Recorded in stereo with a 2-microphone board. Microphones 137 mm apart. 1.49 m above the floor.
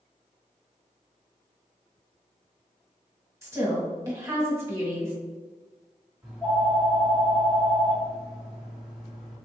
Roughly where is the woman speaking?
Right.